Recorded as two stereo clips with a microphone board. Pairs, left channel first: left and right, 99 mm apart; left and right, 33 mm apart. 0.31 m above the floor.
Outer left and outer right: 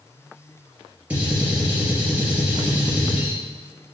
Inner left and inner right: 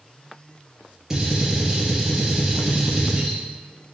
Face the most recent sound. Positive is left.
turn(degrees=-15)  # may be behind; listen again after turning